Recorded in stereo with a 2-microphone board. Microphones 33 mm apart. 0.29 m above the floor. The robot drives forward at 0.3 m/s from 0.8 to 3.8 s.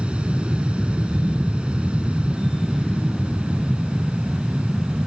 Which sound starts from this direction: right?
An aircraft, at 0.0 s.